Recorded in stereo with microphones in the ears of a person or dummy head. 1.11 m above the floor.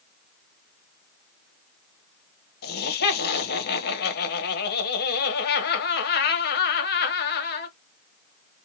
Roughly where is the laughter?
Left.